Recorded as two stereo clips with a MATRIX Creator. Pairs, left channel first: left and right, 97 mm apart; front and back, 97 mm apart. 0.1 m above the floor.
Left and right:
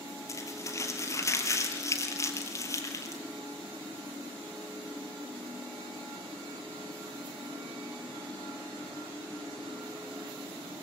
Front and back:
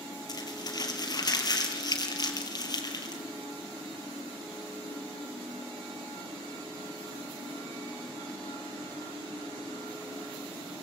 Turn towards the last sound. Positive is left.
turn(degrees=40)